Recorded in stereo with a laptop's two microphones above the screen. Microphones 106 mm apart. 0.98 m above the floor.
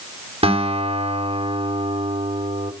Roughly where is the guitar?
Right.